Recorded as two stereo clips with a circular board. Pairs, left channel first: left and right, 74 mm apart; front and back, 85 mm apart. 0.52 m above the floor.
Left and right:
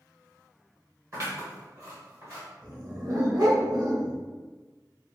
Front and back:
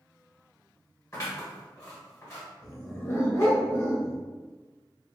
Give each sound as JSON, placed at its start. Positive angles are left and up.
{"t": 1.1, "sound": "scissors", "azimuth_deg": -45, "distance_m": 1.5}
{"t": 2.6, "sound": "a dog barking", "azimuth_deg": -55, "distance_m": 0.7}